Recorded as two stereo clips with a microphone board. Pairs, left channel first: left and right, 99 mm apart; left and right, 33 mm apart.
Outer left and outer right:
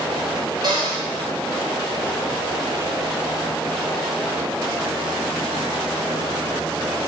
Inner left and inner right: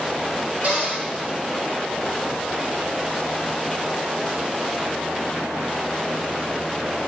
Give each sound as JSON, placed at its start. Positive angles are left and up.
{"t": 0.6, "sound": "a cupboard door", "side_deg": -50, "distance_m": 3.5}